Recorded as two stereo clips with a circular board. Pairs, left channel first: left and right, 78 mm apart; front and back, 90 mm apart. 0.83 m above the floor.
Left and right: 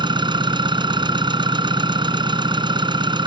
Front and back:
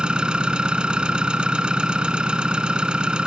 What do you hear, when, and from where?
0.0 s an engine running: 100° right